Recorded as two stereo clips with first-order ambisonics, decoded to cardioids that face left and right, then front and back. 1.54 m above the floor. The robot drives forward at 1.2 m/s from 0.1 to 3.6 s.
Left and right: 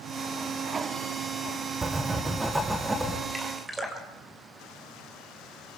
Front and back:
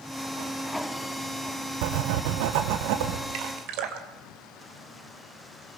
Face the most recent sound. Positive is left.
turn(degrees=-170)